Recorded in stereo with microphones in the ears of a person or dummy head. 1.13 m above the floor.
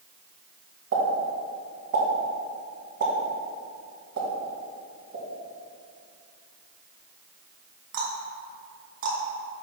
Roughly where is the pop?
Right.